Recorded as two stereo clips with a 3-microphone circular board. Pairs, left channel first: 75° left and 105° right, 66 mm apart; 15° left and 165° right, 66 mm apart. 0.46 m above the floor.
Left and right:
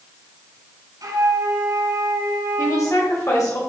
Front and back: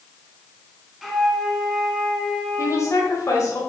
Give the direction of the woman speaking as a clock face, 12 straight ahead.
10 o'clock.